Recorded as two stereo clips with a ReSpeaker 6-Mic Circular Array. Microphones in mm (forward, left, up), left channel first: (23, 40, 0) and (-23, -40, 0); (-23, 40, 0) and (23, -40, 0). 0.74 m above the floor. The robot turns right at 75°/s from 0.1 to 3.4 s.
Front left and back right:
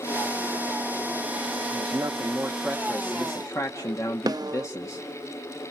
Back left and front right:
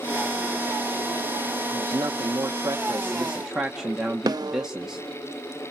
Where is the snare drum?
90° right, 0.6 m.